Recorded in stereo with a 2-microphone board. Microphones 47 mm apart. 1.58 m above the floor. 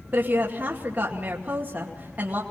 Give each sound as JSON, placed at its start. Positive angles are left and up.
{"t": 0.1, "sound": "a woman speaking", "side_deg": -35, "distance_m": 2.5}